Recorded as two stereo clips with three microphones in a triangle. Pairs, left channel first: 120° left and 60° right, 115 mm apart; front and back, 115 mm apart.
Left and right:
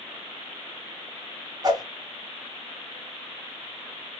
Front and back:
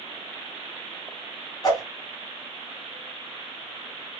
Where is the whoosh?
30° right, 1.9 m.